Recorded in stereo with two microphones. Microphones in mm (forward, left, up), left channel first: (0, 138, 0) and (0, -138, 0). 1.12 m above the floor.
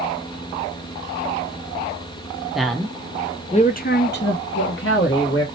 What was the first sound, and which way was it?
A man speaking, centre (ahead or behind).